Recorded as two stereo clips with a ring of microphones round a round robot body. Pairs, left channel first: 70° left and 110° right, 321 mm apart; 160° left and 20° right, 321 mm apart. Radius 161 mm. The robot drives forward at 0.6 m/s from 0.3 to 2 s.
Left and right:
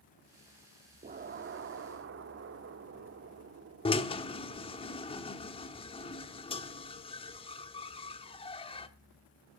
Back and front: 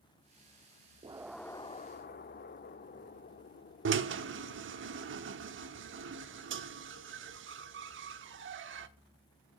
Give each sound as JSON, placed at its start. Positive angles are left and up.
{"t": 1.0, "sound": "an explosion", "azimuth_deg": -75, "distance_m": 0.6}
{"t": 3.9, "sound": "a drill", "azimuth_deg": 5, "distance_m": 1.1}